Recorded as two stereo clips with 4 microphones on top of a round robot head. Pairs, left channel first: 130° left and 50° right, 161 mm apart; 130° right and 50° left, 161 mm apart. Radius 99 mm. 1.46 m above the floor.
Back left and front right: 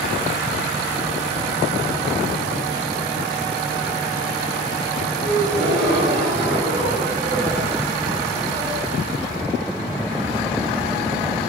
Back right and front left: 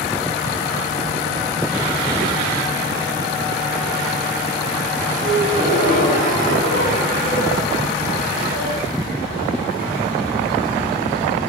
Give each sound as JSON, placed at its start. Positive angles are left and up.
{"t": 5.2, "sound": "a gasp", "azimuth_deg": 5, "distance_m": 5.0}